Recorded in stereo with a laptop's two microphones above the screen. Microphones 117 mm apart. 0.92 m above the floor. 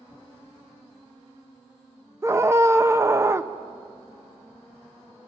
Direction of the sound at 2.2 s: 25° right (ahead or behind).